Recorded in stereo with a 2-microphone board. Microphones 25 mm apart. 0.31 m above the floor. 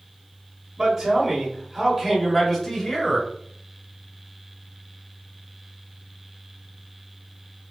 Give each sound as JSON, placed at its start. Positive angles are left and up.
{"t": 0.8, "sound": "a man speaking", "side_deg": -25, "distance_m": 1.5}